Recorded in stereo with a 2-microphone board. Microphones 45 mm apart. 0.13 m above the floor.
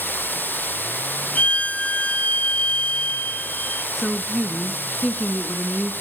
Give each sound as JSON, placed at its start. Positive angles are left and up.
{"t": 0.0, "sound": "running water", "side_deg": 50, "distance_m": 0.8}
{"t": 1.4, "sound": "a violin", "side_deg": 30, "distance_m": 1.2}
{"t": 4.0, "sound": "a woman speaking", "side_deg": 5, "distance_m": 1.2}